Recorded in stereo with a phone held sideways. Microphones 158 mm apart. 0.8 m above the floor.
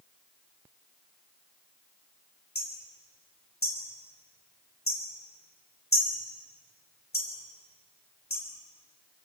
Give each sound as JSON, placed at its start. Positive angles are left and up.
{"t": 2.5, "sound": "hammering", "side_deg": 80, "distance_m": 4.0}